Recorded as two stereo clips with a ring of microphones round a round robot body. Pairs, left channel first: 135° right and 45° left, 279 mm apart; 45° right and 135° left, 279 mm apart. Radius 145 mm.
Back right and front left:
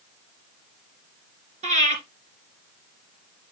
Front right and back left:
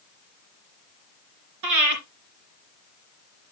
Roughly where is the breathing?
Left.